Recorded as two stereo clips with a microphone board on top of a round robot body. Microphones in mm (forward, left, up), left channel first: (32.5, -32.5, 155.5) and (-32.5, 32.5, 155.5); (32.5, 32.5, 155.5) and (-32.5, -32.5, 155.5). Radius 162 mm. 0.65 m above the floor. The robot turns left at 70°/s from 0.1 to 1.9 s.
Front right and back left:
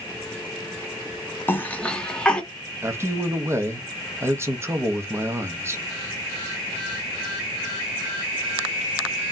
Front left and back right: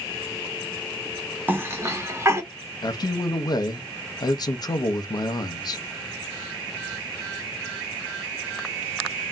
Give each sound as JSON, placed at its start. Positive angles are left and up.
{"t": 1.5, "sound": "a cough", "azimuth_deg": -85, "distance_m": 1.1}
{"t": 2.8, "sound": "a man speaking", "azimuth_deg": 80, "distance_m": 0.7}